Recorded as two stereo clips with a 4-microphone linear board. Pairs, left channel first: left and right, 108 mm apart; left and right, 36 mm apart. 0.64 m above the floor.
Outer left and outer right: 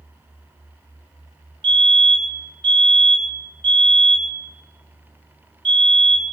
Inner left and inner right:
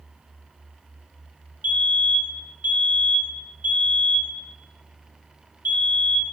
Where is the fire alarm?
55° right (ahead or behind), 4 m.